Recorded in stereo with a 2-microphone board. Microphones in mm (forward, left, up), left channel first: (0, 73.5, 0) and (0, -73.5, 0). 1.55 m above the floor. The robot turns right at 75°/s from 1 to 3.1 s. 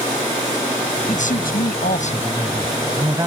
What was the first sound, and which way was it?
A man speaking, 50° left.